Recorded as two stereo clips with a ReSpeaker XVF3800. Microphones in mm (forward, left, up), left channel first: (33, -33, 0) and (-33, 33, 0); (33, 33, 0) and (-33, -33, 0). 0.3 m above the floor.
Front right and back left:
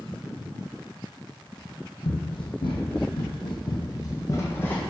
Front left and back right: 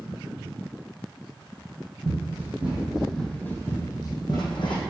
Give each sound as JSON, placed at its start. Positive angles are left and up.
{"t": 2.0, "sound": "running footsteps", "azimuth_deg": -70, "distance_m": 1.1}